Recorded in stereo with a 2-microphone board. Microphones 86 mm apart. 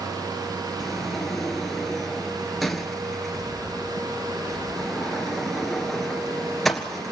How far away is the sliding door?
About 1.5 m.